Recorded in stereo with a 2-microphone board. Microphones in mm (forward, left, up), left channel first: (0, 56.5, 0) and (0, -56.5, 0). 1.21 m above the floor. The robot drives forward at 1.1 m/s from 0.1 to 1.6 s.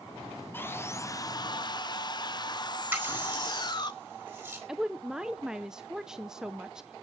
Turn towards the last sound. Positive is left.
turn(degrees=-5)  # may be behind; listen again after turning